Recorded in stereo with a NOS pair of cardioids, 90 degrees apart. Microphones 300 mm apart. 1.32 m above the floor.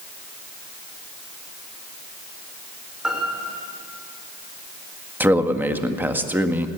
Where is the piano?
Straight ahead, 5.5 m.